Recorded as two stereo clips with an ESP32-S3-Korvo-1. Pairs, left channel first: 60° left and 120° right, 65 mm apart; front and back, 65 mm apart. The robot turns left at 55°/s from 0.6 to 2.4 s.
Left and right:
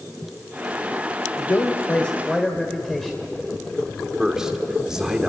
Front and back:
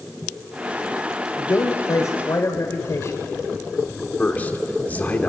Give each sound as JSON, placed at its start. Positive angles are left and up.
{"t": 1.4, "sound": "a man speaking", "azimuth_deg": 35, "distance_m": 1.9}
{"t": 4.2, "sound": "a man speaking", "azimuth_deg": -45, "distance_m": 1.6}